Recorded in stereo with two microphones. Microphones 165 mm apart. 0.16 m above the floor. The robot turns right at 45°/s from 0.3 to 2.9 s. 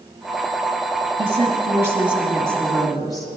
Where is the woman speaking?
50° right, 2.5 m; by 3.3 s 25° left, 2.5 m.